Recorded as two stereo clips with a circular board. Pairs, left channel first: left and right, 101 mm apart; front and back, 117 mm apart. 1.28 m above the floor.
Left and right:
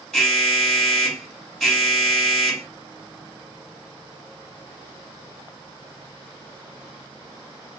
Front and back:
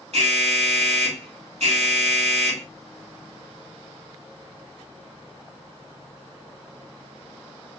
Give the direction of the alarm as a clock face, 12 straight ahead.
6 o'clock.